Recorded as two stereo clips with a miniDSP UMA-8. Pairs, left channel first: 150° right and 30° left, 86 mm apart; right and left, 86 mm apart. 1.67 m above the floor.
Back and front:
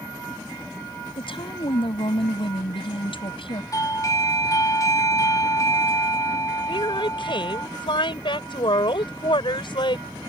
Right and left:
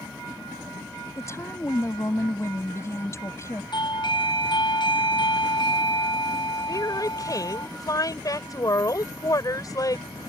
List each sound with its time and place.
1.2 s a woman speaking: 145° right
3.7 s a doorbell: 105° right
6.7 s a woman speaking: 135° right